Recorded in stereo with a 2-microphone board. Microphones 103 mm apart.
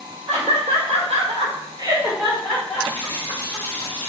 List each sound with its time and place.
0.3 s laughter: 70° right (ahead or behind), 1.8 m; by 3.9 s 40° left (ahead or behind), 2 m
2.9 s a running tap: 70° right (ahead or behind), 1.9 m